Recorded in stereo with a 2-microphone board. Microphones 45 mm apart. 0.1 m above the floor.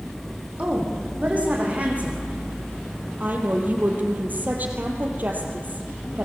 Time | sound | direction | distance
0.6 | a woman speaking | 35° right (ahead or behind) | 6.5 m
3.2 | a woman speaking | 45° right (ahead or behind) | 3 m